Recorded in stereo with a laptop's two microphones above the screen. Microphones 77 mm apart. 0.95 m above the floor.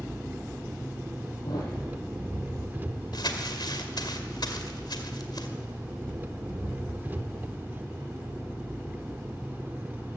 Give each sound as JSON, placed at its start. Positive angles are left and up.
{"t": 0.0, "sound": "an engine running", "side_deg": -25, "distance_m": 1.1}
{"t": 1.4, "sound": "a thud", "side_deg": 55, "distance_m": 8.5}
{"t": 3.1, "sound": "crumpling", "side_deg": 65, "distance_m": 2.0}